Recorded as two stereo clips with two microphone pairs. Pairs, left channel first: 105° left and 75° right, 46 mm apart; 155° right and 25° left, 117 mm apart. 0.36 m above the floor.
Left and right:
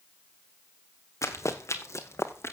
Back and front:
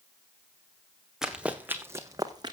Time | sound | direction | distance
1.2 | running footsteps | 110° left | 1.7 m